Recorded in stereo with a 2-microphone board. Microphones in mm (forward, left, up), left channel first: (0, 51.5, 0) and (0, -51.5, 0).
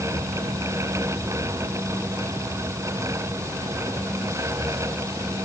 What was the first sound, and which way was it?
Only background noise.